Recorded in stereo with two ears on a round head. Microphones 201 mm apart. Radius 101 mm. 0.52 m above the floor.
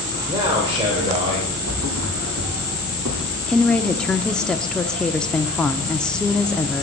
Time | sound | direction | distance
0.3 | a man speaking | 20° right (ahead or behind) | 2.5 m
1.7 | a thud | 75° right (ahead or behind) | 2.5 m
3.5 | a woman speaking | 5° left (ahead or behind) | 0.6 m